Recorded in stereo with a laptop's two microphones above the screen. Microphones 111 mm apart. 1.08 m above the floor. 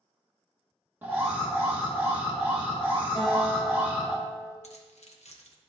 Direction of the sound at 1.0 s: 20° right (ahead or behind).